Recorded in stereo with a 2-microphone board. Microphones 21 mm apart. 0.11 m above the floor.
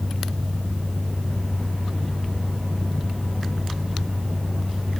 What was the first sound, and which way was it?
Only background noise.